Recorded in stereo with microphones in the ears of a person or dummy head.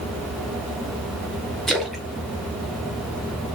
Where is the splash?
Centre (ahead or behind), 0.5 m.